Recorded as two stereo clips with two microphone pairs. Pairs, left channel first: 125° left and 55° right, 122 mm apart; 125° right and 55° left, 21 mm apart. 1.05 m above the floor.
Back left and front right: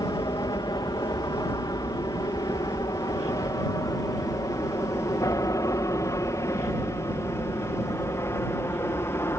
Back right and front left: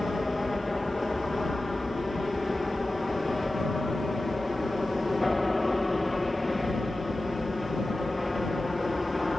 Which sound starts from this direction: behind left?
An aircraft, at 0.0 s.